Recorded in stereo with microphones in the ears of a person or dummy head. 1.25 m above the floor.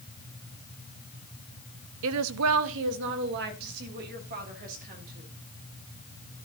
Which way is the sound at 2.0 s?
65° right (ahead or behind).